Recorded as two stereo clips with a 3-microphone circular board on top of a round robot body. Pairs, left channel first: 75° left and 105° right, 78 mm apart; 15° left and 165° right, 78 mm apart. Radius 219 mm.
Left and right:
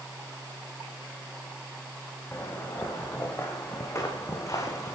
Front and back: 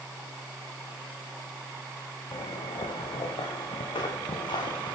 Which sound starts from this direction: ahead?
Footsteps, at 2.3 s.